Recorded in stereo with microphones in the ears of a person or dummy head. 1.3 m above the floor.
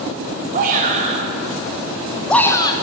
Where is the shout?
40° right (ahead or behind), 2.5 m; by 2.7 s 30° left (ahead or behind), 1.4 m.